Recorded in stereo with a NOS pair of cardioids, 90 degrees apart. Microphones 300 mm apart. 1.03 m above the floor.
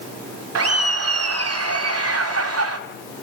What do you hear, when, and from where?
0.6 s laughter: 55° right, 3 m